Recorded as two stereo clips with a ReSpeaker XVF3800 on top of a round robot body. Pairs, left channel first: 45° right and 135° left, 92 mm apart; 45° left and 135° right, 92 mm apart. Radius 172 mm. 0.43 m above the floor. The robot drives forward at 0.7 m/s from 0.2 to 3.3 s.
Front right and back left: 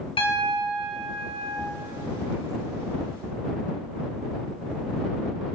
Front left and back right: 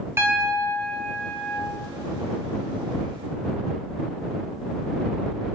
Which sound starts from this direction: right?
A piano, at 0.2 s.